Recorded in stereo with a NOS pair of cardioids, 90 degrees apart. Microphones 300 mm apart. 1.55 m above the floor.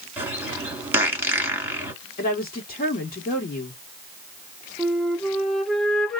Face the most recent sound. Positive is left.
turn(degrees=0)